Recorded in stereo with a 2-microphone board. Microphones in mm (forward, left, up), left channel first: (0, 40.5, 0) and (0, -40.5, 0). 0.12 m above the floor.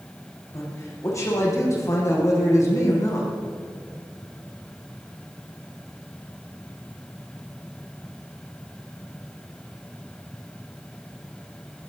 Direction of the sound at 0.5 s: 40° left (ahead or behind).